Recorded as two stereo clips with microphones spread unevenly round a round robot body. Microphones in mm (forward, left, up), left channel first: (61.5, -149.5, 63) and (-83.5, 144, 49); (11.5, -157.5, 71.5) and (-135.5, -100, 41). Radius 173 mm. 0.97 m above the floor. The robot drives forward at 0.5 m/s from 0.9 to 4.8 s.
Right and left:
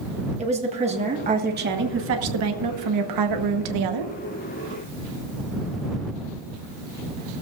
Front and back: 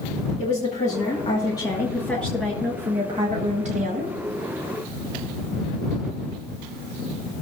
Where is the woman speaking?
45° left, 1.6 m; by 4.1 s 115° left, 1.2 m.